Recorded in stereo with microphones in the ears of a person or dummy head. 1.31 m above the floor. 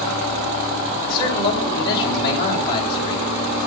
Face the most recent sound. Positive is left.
turn(degrees=30)  # may be behind; listen again after turning